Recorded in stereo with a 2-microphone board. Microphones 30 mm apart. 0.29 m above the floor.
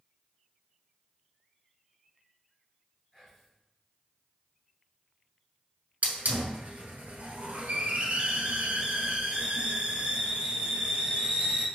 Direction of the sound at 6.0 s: 60° right (ahead or behind).